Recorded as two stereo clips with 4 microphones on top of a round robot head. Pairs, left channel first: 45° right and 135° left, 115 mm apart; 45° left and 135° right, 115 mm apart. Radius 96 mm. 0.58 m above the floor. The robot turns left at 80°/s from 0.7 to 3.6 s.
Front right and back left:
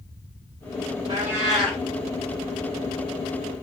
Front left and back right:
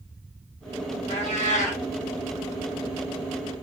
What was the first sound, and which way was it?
A cat meowing, 80° left.